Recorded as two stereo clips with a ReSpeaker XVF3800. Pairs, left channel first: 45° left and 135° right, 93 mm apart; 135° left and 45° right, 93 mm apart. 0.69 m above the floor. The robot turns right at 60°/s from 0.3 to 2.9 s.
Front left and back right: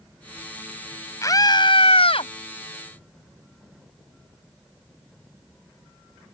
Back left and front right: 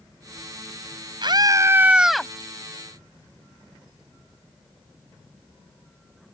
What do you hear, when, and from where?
1.2 s a scream: 10° right; by 2.3 s 55° left